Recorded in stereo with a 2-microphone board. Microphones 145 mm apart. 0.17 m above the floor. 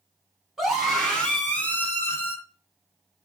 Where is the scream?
5° right (ahead or behind), 1.2 m; by 2.4 s 20° left (ahead or behind), 1.7 m.